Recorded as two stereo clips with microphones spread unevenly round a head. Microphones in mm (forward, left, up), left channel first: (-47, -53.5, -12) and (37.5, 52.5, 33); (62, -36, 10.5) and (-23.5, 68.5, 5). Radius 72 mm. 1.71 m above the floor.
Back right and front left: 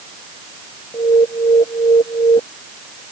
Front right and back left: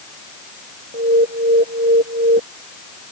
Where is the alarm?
165° left.